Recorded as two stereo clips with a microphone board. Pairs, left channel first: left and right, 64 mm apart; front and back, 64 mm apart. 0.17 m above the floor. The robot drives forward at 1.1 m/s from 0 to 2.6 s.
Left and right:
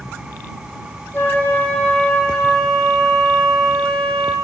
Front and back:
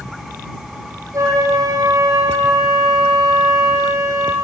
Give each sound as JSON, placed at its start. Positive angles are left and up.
{"t": 1.1, "sound": "a flute", "azimuth_deg": 150, "distance_m": 2.0}